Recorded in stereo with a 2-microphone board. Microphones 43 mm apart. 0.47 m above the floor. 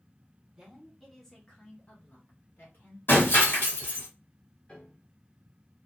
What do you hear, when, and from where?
0.6 s a woman speaking: 15° right (ahead or behind), 0.9 m; by 3.0 s 50° left (ahead or behind), 1.4 m
3.1 s breaking glass: 50° left (ahead or behind), 1.3 m
4.7 s a piano: 30° left (ahead or behind), 1.2 m